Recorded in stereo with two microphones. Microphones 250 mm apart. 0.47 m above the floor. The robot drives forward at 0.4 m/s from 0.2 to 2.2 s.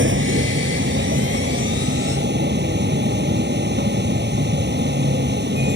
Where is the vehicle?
50° right (ahead or behind); by 5.8 s 45° right (ahead or behind).